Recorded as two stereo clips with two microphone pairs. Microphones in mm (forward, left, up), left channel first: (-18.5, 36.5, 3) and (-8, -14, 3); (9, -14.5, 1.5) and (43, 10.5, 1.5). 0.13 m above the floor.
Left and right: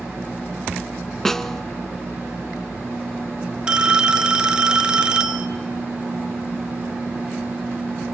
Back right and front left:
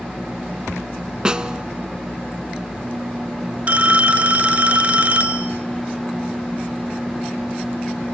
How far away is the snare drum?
About 0.6 m.